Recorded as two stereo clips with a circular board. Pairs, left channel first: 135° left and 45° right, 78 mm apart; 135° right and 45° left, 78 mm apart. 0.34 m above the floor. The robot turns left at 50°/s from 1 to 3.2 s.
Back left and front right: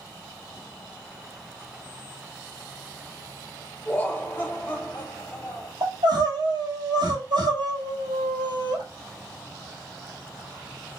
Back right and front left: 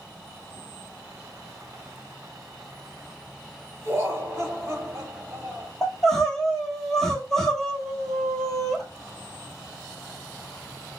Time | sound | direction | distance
3.9 | laughter | 75° left | 1.3 m
5.8 | crying | 50° right | 1.2 m